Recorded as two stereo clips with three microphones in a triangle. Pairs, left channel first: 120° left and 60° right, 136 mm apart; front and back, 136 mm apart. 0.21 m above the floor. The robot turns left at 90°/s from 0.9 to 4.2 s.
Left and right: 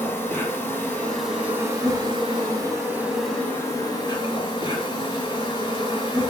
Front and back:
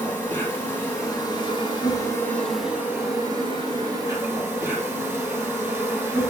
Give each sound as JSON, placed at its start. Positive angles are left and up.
{"t": 0.0, "sound": "an insect", "azimuth_deg": 60, "distance_m": 0.8}